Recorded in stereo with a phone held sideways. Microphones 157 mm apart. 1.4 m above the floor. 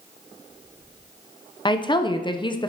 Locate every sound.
1.6 s a woman speaking: 30° left (ahead or behind), 0.6 m